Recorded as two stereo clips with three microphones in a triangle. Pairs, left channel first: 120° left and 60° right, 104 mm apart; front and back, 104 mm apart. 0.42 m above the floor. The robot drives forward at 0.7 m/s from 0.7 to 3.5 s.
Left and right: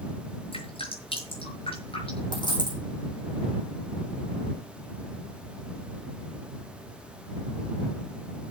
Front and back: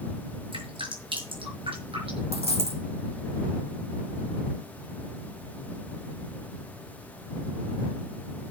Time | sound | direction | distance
0.5 | dripping | 145° left | 6 m
2.3 | a dropped coin | 165° left | 6 m